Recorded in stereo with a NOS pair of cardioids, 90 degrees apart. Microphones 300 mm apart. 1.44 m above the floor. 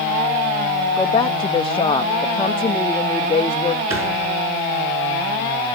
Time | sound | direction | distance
1.0 | a woman speaking | 20° left | 0.5 m
3.9 | a thud | 45° right | 5.5 m